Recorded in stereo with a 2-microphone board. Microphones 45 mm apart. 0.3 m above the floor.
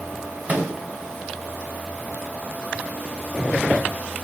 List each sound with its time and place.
0.5 s a microwave: 35° right (ahead or behind), 0.8 m